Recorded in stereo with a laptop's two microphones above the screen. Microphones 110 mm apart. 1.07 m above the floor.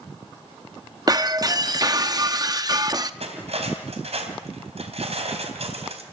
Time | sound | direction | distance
1.1 | breaking glass | 35° right (ahead or behind) | 0.6 m
3.2 | cutlery clinking | 70° right (ahead or behind) | 3.5 m